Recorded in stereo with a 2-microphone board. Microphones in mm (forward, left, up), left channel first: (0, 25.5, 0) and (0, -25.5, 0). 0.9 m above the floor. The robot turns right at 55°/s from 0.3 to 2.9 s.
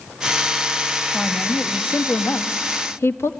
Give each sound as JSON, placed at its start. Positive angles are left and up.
{"t": 1.1, "sound": "a woman speaking", "azimuth_deg": 0, "distance_m": 1.3}